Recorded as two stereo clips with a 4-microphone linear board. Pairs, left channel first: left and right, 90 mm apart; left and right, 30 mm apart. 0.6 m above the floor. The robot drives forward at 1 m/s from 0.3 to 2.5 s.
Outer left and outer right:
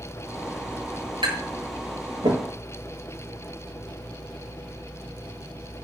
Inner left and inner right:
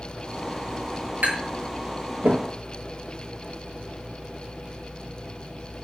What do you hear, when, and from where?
1.2 s tapping: 75° right (ahead or behind), 7 m; by 2.4 s 85° right, 6.5 m